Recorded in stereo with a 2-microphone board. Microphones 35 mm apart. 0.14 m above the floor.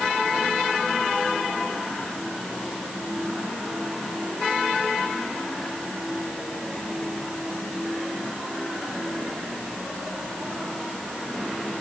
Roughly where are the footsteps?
No footsteps in this recording.